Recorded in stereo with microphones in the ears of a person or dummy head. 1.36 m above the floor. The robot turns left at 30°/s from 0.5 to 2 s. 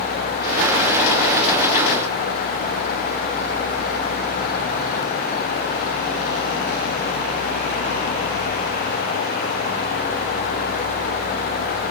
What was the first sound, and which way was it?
Only background noise.